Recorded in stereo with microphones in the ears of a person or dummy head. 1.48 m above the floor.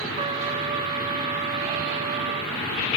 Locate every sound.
0.2 s a trumpet: 30° right (ahead or behind), 1.2 m